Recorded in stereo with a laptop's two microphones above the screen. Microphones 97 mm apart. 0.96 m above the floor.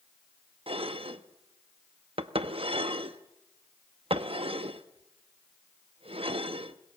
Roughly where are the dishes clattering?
Right.